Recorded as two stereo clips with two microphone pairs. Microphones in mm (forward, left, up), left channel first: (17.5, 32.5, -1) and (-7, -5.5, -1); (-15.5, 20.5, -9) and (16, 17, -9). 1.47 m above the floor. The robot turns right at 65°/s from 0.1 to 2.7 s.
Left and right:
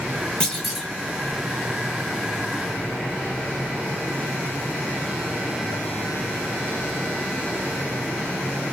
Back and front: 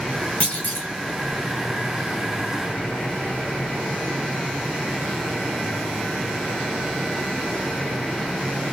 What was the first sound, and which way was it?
A clunk, 125° left.